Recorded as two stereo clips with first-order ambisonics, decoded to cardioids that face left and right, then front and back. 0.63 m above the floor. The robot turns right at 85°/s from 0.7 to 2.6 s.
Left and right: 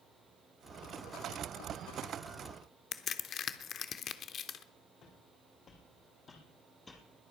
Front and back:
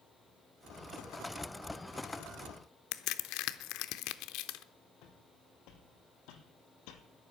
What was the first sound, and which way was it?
A crack, 30° left.